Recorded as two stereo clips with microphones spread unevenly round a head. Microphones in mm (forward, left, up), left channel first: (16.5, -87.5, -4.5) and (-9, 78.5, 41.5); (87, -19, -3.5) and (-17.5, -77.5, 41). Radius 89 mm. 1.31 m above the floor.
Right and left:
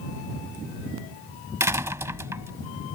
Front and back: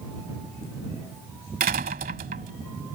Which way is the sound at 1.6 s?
170° left.